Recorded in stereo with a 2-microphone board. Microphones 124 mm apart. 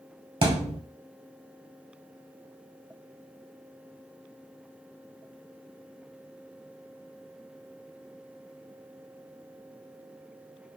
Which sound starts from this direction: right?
A thud, at 0.4 s.